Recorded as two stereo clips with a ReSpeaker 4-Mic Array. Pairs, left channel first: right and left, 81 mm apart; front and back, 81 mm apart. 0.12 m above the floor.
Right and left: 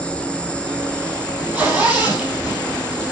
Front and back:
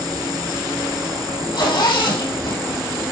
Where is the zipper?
10° left, 3.5 m.